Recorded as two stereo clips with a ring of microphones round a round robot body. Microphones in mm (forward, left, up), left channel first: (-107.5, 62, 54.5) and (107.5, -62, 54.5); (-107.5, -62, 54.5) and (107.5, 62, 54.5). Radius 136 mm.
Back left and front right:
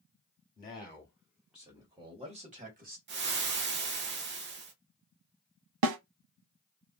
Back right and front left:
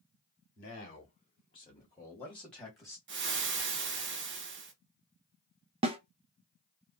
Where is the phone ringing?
No phone ringing in this recording.